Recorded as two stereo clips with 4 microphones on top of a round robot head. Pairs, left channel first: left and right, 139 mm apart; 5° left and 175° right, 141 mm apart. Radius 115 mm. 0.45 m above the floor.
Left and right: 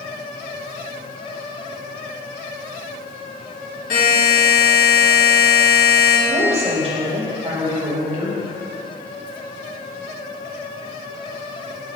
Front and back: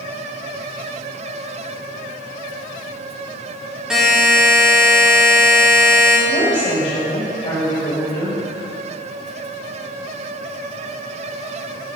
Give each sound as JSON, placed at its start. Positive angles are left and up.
{"t": 3.9, "sound": "a buzzer", "azimuth_deg": 100, "distance_m": 2.0}
{"t": 6.3, "sound": "a woman speaking", "azimuth_deg": -50, "distance_m": 2.0}